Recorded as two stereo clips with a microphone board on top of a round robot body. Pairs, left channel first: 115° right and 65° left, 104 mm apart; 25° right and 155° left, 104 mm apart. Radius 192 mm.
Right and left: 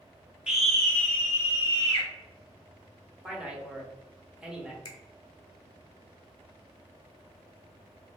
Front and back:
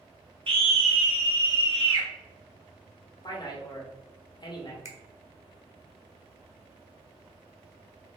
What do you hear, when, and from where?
0.5 s a scream: 150° left, 1.5 m; by 2.1 s 165° right, 2.5 m
3.2 s a man speaking: 15° right, 1.4 m
4.8 s a finger snap: 145° right, 1.1 m